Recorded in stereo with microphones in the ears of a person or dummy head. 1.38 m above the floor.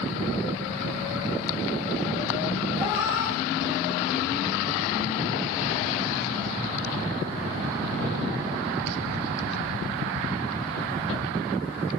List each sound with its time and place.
2.7 s a cat meowing: 65° left (ahead or behind), 3 m; by 4.6 s 10° left (ahead or behind), 1.8 m